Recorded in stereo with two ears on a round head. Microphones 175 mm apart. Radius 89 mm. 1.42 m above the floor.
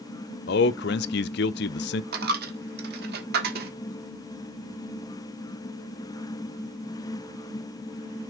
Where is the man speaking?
55° left (ahead or behind), 0.5 m.